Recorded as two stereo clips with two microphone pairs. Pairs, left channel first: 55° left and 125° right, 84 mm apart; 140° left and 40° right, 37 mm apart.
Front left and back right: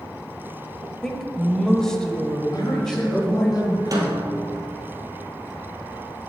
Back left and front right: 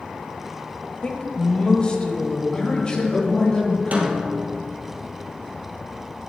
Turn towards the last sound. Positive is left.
turn(degrees=-80)